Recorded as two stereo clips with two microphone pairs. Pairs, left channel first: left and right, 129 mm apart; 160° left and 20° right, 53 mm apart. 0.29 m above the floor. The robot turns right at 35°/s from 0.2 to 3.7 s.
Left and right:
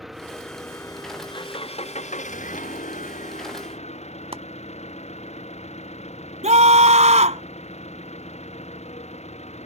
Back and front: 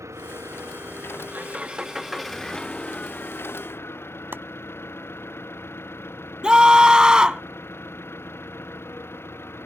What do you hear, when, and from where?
0.0 s an engine running: straight ahead; by 9.7 s 120° left
4.3 s chopping: 60° right
6.4 s a scream: 95° right